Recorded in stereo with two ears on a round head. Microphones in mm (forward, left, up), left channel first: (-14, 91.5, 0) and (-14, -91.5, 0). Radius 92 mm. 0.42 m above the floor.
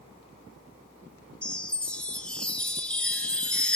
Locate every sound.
1.4 s a chime: 5° left (ahead or behind), 1.2 m